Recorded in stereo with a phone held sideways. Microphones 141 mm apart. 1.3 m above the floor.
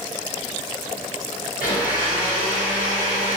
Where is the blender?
75° left (ahead or behind), 1.4 m.